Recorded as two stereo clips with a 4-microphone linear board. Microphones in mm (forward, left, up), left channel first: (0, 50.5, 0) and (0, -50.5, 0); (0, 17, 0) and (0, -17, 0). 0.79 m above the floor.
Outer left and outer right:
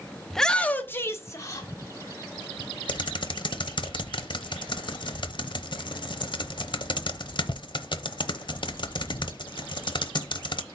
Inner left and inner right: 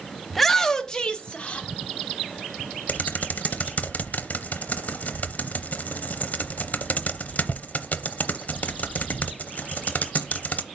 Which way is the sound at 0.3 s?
Centre (ahead or behind).